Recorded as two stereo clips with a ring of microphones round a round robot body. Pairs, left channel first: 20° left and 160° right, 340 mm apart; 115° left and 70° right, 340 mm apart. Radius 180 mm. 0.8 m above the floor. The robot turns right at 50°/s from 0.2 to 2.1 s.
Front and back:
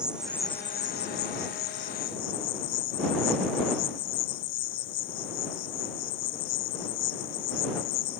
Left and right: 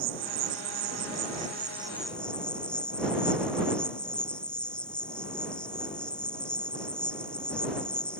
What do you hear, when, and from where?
0.0 s an insect: 70° right; by 8.2 s 25° left